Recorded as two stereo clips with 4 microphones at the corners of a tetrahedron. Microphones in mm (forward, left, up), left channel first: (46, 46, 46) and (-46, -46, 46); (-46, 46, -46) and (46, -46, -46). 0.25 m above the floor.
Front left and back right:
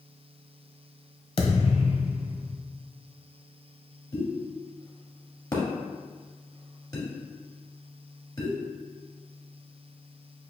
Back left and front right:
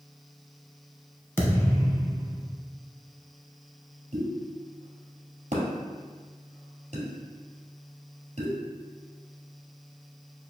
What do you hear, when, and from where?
1.4 s a thud: 70° left, 0.8 m
4.1 s a pop: 20° right, 1.8 m